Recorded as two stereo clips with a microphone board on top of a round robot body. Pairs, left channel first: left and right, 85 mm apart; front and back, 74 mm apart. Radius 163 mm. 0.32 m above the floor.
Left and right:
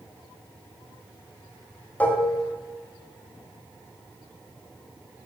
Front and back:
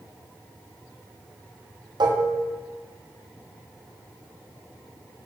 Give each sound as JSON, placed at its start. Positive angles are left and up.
{"t": 2.0, "sound": "dishes clattering", "azimuth_deg": 165, "distance_m": 2.5}